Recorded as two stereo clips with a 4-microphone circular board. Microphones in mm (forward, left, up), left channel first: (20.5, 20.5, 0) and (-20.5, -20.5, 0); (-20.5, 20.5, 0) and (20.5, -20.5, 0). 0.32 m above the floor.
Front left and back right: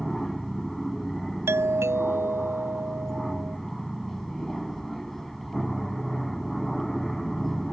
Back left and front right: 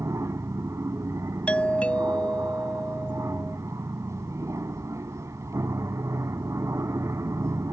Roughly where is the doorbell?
Behind.